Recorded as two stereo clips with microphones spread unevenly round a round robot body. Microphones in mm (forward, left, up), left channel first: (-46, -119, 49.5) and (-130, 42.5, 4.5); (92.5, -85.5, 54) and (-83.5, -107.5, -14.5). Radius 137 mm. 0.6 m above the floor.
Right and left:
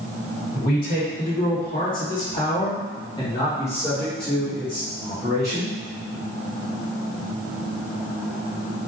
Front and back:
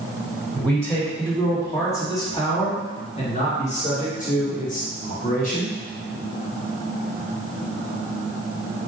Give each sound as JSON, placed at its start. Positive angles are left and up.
{"t": 0.6, "sound": "a man speaking", "azimuth_deg": -95, "distance_m": 1.9}